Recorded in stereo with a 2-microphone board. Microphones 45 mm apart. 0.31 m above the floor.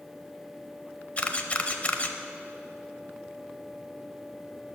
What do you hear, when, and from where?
1.2 s a camera shutter: 30° left (ahead or behind), 0.6 m